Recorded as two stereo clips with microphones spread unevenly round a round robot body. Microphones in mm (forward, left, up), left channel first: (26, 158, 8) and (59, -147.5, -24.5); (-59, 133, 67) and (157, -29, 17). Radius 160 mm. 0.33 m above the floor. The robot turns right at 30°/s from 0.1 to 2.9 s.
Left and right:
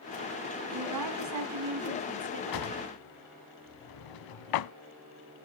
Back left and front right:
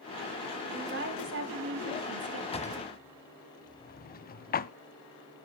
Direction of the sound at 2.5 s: 70° left.